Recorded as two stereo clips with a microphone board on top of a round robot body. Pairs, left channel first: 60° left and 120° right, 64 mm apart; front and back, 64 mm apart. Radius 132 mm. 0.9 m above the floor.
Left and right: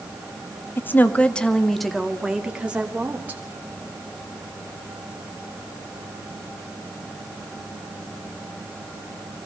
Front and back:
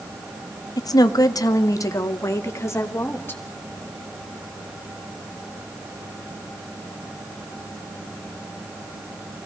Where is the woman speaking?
5° left, 1.8 m; by 3.4 s 55° right, 3 m.